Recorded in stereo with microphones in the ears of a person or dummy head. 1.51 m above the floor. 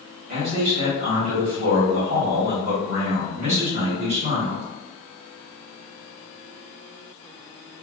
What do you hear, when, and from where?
0.3 s a man speaking: 50° right (ahead or behind), 1.9 m